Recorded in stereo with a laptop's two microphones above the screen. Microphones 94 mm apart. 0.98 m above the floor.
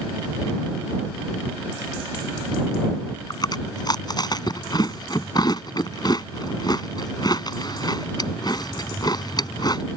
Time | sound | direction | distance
3.3 | chewing | 45° left (ahead or behind) | ?